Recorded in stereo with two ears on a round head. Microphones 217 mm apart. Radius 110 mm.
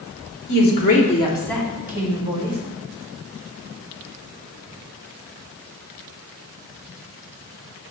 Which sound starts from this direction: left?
A woman speaking, at 0.5 s.